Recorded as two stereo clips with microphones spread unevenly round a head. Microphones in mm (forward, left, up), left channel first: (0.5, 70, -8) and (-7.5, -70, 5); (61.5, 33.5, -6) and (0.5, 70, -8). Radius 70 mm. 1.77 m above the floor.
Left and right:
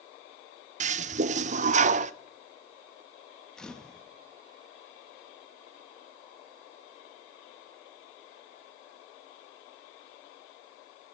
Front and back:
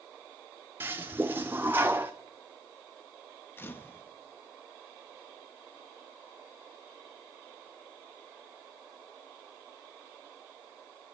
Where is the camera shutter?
Straight ahead, 1.2 m.